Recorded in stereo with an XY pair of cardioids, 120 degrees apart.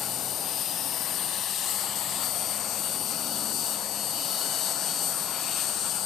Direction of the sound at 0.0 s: 65° left.